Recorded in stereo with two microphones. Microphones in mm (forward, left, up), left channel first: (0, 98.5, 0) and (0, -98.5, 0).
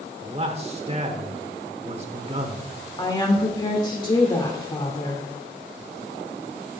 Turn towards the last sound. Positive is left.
turn(degrees=20)  # may be behind; listen again after turning